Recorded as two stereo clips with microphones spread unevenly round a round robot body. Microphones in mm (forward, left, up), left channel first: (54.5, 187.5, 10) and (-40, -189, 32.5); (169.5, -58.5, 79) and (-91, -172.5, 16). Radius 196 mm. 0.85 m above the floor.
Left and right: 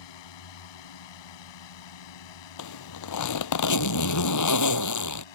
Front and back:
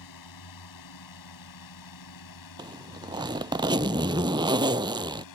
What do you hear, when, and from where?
0.0 s a drone: 55° left; by 5.3 s 65° left
2.6 s a zipper: 125° left